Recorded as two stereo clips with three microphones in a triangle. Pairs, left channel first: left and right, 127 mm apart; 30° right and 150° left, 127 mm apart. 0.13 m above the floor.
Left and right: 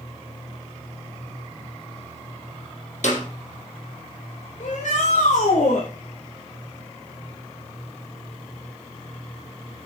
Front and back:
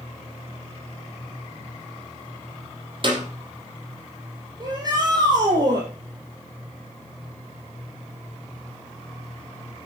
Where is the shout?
95° left, 4.5 m.